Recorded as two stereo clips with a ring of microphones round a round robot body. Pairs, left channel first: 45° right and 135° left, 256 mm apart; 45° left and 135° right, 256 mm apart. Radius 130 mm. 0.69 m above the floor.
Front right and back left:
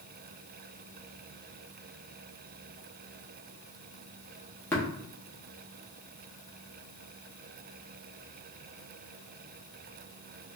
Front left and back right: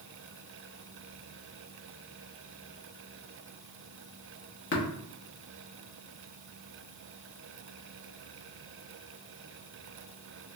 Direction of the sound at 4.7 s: 35° left.